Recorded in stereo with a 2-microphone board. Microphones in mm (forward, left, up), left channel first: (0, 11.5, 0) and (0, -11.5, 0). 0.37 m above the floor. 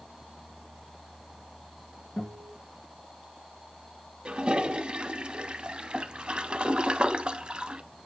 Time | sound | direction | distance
2.2 | a guitar | 55° left (ahead or behind) | 4 m
4.2 | a toilet flushing | 40° right (ahead or behind) | 0.6 m